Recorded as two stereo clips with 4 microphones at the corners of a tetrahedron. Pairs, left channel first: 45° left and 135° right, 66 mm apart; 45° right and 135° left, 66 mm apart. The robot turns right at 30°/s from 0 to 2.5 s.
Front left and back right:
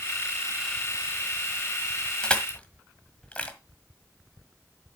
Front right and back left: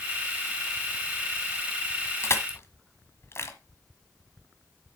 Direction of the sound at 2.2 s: 30° right.